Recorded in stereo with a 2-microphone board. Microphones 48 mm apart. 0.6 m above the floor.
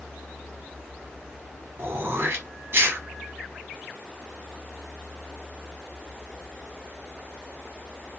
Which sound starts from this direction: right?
Throat clearing, at 1.8 s.